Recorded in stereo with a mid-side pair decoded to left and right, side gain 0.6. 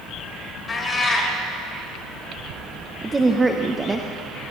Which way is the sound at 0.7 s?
25° left.